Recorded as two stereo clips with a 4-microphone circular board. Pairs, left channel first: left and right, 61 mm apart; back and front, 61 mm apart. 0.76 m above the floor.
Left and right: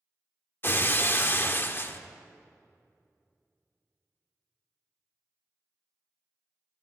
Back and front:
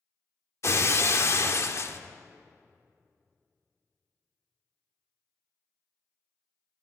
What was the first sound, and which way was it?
Breaking glass, 140° left.